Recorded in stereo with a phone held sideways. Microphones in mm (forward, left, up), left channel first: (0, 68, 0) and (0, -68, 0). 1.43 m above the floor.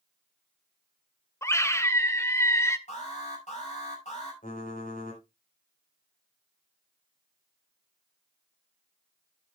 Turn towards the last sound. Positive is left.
turn(degrees=75)  # may be behind; listen again after turning